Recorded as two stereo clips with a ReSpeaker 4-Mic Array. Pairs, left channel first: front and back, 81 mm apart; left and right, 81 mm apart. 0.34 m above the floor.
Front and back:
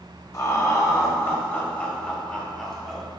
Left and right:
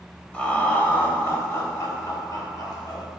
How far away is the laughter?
About 1.5 m.